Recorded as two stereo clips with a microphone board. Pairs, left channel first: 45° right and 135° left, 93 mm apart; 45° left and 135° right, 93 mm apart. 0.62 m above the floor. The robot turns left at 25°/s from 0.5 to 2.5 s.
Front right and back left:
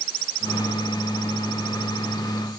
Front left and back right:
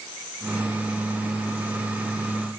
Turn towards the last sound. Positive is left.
No sound to turn to.